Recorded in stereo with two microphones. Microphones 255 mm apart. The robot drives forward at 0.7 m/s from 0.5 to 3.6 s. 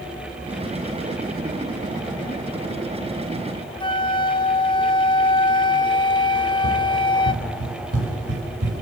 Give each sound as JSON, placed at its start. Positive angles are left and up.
{"t": 3.8, "sound": "a flute", "side_deg": 20, "distance_m": 1.2}
{"t": 6.3, "sound": "running footsteps", "side_deg": -65, "distance_m": 10.0}